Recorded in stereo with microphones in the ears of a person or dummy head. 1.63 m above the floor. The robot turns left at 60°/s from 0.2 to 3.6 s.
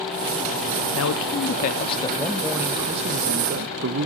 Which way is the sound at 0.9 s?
90° left.